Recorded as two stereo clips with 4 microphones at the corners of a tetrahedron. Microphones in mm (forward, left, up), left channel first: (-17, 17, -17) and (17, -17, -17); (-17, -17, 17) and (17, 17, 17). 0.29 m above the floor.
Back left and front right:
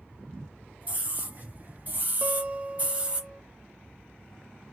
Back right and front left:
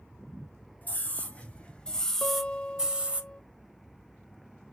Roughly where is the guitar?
Right.